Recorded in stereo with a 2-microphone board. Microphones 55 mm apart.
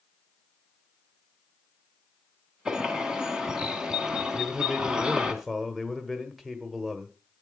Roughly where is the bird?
Centre.